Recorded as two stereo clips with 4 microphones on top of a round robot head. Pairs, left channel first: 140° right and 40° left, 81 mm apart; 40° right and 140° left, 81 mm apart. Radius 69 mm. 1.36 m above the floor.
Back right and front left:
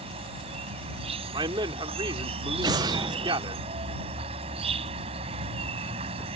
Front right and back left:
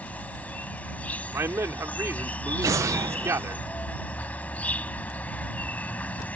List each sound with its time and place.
0.0 s an insect: 35° left
1.3 s a man speaking: 80° left
2.6 s an explosion: 85° left